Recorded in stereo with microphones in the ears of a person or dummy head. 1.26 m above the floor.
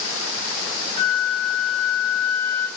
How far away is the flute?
About 2 m.